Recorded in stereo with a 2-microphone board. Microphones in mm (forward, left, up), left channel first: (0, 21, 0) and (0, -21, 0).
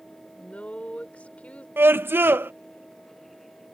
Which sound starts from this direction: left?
A woman speaking, at 0.4 s.